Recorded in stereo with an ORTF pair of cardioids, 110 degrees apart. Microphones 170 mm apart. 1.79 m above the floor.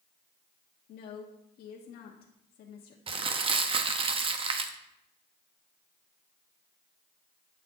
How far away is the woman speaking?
About 1.4 m.